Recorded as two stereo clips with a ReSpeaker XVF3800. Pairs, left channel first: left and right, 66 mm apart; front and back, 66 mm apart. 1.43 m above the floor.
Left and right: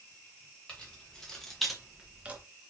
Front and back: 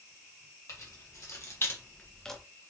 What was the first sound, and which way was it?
Keys jangling, 20° left.